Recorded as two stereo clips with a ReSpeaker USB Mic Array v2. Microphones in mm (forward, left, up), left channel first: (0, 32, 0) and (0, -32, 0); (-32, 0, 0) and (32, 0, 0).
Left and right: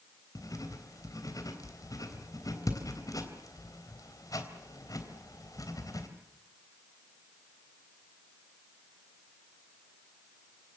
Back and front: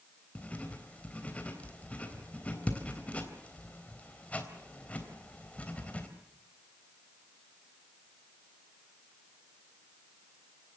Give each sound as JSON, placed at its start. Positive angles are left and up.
{"t": 0.3, "sound": "writing", "azimuth_deg": 110, "distance_m": 3.5}